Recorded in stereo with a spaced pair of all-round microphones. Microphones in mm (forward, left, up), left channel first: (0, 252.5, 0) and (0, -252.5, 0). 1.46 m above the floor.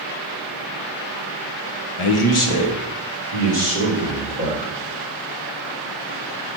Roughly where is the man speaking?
Left.